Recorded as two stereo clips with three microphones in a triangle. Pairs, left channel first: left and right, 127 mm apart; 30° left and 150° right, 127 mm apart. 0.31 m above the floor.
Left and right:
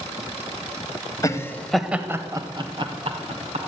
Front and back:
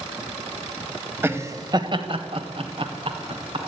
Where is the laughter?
145° left, 1.6 m; by 3.6 s 110° right, 3 m.